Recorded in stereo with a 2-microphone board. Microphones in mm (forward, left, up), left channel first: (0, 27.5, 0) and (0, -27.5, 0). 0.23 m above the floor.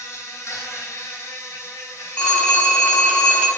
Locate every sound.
0.0 s an insect: 65° left (ahead or behind), 0.8 m
2.2 s a phone ringing: 20° left (ahead or behind), 0.9 m